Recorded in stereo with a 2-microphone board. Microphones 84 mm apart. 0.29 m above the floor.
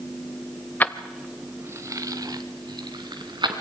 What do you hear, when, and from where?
0.8 s keys jangling: 20° left (ahead or behind), 0.8 m; by 3.6 s 65° right (ahead or behind), 2.5 m